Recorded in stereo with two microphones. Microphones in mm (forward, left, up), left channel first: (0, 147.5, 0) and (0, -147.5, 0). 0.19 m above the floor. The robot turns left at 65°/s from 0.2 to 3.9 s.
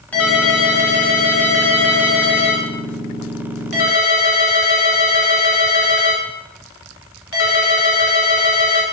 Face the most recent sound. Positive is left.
turn(degrees=125)